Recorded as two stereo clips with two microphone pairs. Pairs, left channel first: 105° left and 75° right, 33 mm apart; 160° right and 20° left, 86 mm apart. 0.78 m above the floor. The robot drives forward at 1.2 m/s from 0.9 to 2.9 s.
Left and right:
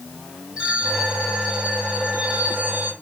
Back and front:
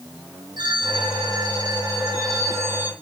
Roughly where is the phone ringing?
Ahead.